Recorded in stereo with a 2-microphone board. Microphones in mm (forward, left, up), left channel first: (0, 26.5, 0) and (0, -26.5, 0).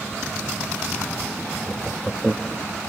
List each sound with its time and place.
1.7 s laughter: centre (ahead or behind)